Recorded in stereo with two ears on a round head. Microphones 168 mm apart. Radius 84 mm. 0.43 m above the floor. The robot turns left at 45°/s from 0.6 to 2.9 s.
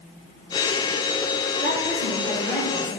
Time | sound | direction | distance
1.6 | a woman speaking | 130° right | 2.5 m